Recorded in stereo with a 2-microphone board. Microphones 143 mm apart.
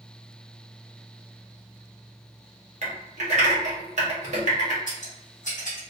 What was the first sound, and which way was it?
Typing on a keyboard, 55° right (ahead or behind).